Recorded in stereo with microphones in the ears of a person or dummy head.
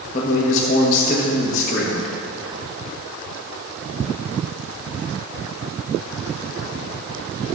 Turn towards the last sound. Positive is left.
turn(degrees=40)  # may be behind; listen again after turning